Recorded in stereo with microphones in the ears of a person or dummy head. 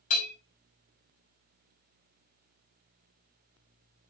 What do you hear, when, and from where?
0.1 s a bell: 45° left (ahead or behind), 4.5 m